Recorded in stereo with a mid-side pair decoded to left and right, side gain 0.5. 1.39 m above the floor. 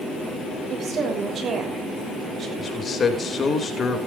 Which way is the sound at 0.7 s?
50° right.